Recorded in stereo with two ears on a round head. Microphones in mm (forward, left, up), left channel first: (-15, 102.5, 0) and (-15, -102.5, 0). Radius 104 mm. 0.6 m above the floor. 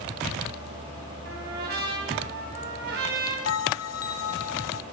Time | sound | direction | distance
1.2 | a trumpet | 45° right (ahead or behind) | 5 m
3.5 | a bell | 70° left (ahead or behind) | 0.9 m